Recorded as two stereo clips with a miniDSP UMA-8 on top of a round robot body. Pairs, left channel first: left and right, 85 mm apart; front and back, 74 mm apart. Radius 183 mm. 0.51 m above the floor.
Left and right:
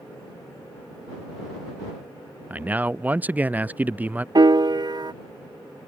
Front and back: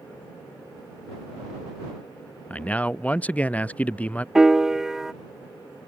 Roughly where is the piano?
Right.